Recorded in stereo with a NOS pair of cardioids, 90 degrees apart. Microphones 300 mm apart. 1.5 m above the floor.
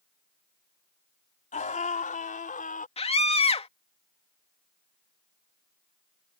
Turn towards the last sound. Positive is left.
turn(degrees=20)